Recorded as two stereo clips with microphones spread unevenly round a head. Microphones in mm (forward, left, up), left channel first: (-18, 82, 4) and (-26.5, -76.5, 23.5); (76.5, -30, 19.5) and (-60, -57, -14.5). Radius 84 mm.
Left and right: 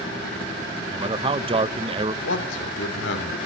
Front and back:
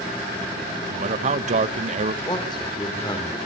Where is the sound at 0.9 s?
150° right, 0.9 m.